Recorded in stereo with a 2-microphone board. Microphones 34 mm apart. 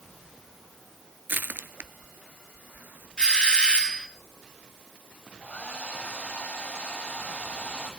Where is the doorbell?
25° left (ahead or behind), 2.5 m.